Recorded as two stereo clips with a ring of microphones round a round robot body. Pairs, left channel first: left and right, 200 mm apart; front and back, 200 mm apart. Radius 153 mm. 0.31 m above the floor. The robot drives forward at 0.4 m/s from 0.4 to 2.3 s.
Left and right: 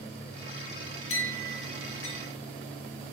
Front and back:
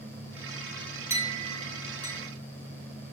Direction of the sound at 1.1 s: 105° left.